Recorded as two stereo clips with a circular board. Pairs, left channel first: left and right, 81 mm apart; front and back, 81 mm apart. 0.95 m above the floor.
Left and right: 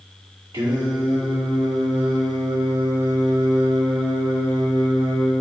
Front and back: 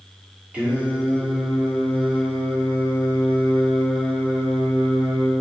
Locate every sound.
0.5 s singing: 105° right, 2.5 m